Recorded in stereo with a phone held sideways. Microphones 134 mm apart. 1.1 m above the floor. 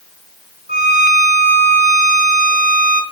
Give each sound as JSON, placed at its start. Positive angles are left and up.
{"t": 0.7, "sound": "a violin", "side_deg": -85, "distance_m": 5.0}